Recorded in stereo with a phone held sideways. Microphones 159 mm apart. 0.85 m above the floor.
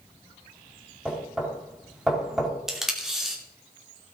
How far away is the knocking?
About 3.5 m.